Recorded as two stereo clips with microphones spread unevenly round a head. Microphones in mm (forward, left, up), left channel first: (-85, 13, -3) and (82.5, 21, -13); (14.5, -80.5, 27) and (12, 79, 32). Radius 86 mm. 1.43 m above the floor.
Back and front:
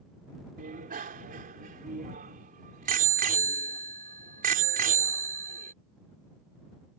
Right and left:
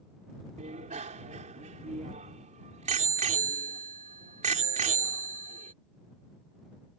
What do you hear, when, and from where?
0.6 s a bicycle bell: 40° left